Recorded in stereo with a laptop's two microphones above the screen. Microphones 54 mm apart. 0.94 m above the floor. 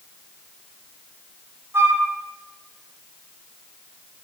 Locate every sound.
1.7 s a flute: 45° right (ahead or behind), 0.6 m